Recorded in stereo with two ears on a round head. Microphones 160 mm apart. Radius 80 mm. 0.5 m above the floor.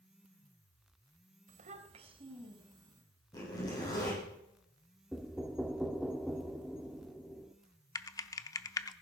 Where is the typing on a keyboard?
20° left (ahead or behind), 0.6 m.